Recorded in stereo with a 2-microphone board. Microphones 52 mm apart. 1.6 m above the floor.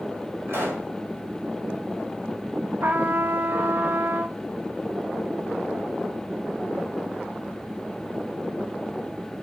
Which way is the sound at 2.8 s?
45° right (ahead or behind).